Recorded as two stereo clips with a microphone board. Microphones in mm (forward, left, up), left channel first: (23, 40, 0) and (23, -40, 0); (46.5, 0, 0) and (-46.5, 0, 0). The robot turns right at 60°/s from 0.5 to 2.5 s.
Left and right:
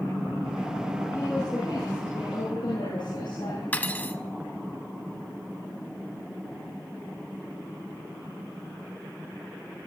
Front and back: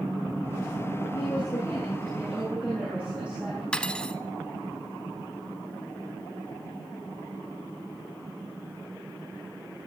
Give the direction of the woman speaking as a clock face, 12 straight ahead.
11 o'clock.